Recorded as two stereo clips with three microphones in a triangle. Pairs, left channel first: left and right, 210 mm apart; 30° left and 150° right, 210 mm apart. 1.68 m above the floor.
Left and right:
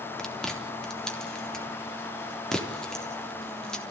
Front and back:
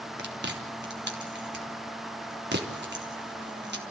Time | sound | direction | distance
0.2 | chewing | 175° left | 3.5 m